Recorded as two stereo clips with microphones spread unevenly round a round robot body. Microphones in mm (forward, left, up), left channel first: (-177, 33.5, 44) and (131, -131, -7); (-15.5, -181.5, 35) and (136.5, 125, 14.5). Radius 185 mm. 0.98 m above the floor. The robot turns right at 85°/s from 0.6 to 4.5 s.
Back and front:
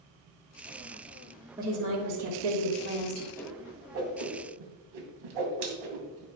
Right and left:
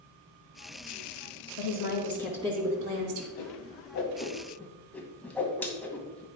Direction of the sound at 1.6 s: 110° right.